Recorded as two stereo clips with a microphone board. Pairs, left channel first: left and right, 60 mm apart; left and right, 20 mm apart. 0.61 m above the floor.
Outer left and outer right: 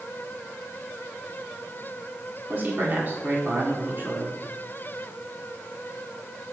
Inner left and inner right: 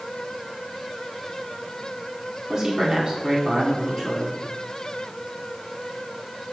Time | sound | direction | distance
2.5 | a man speaking | 40° right (ahead or behind) | 1.8 m